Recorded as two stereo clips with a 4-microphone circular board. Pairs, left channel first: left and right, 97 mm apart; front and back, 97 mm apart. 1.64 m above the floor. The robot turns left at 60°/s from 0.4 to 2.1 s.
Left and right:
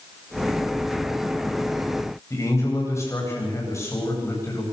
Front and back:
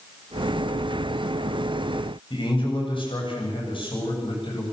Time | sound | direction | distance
2.3 | a man speaking | 30° left | 9 m